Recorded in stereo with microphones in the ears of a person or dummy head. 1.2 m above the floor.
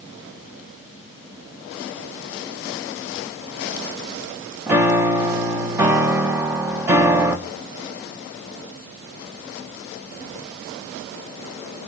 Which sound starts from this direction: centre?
A piano, at 4.7 s.